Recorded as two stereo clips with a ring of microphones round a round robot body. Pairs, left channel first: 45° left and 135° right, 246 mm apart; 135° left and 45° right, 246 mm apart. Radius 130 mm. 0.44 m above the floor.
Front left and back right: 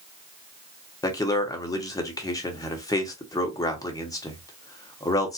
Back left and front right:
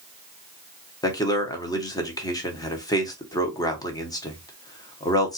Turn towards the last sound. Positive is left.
turn(degrees=90)